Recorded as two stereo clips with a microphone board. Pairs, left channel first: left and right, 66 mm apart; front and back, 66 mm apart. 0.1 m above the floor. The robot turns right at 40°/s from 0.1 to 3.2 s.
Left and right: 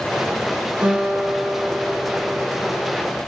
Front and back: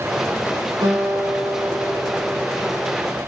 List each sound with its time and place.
0.8 s a guitar: 160° right, 4.5 m; by 2.9 s 75° right, 4.5 m